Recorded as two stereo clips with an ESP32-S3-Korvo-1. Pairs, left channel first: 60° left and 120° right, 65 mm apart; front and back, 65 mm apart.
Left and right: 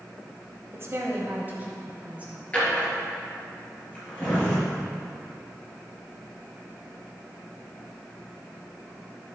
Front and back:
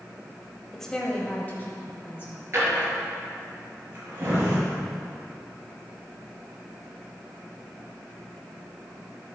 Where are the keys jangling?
I don't hear keys jangling.